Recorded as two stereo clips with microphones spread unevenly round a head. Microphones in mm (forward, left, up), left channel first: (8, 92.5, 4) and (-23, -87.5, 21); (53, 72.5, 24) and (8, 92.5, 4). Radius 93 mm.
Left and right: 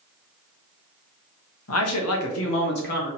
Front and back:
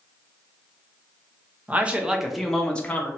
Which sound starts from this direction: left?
A man speaking, at 1.7 s.